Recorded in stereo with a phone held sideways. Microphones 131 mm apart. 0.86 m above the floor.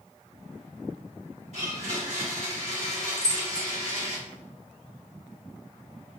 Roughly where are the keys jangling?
Left.